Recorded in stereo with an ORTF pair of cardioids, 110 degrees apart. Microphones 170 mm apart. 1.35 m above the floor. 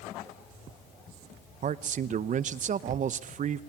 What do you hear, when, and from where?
1.6 s a man speaking: 50° right, 1.0 m